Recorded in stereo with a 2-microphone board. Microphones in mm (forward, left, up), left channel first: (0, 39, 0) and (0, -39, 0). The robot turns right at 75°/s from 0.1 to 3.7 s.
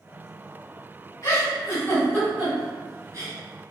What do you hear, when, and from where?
1.2 s a giggle: 45° left (ahead or behind), 1.7 m; by 3.3 s 40° right (ahead or behind), 1.7 m